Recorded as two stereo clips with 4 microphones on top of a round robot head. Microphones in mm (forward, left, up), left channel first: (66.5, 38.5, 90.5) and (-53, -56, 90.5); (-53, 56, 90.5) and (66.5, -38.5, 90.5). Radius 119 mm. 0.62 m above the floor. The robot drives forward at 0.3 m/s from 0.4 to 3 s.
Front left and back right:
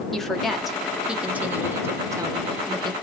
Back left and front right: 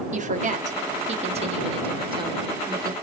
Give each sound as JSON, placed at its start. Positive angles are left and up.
{"t": 0.1, "sound": "a woman speaking", "azimuth_deg": -50, "distance_m": 1.3}